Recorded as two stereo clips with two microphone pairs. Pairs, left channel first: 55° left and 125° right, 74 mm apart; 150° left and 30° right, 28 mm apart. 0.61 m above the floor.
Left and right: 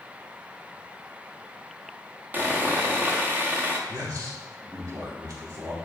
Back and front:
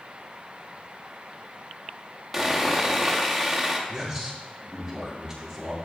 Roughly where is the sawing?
Right.